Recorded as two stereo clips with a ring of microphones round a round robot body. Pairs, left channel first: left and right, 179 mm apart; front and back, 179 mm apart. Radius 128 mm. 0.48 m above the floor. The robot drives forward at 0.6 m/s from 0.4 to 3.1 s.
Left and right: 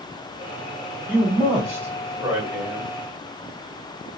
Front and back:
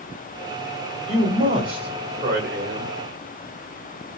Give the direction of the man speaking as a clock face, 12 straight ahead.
5 o'clock.